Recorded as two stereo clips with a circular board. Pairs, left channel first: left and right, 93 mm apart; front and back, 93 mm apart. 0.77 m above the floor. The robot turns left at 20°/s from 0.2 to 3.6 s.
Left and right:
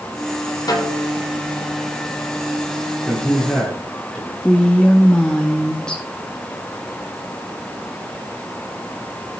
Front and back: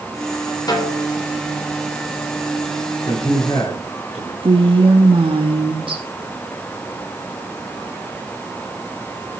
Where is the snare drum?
45° left, 3 m; by 1.1 s 35° left, 3 m.